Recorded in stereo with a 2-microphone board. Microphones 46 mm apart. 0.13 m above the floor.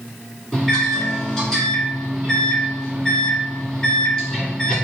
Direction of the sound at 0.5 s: 15° left (ahead or behind).